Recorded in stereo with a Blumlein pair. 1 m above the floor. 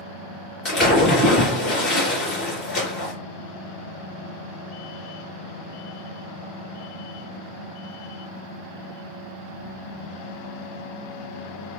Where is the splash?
30° left, 2.5 m.